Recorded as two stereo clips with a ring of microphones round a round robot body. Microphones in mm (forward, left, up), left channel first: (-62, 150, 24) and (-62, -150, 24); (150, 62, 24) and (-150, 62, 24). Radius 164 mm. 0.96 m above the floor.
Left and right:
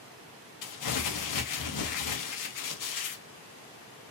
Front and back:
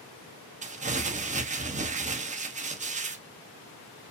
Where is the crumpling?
110° left, 1.0 m.